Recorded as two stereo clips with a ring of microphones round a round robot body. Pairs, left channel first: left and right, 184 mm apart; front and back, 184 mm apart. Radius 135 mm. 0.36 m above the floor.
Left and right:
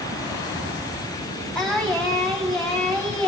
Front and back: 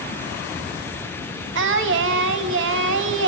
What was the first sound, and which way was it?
Singing, 175° left.